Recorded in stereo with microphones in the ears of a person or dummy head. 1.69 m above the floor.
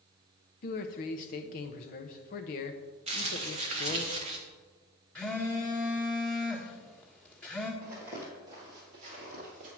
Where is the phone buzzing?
10° left (ahead or behind), 1.4 m.